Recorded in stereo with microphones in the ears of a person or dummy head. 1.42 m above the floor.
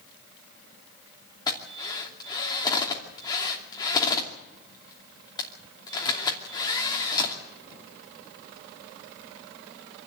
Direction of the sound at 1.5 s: 20° left (ahead or behind).